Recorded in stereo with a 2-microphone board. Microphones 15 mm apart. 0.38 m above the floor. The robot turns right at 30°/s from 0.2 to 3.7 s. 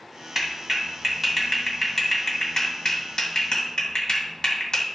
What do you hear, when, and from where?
0.3 s a clap: 30° right (ahead or behind), 2.5 m; by 4.9 s 60° left (ahead or behind), 2.5 m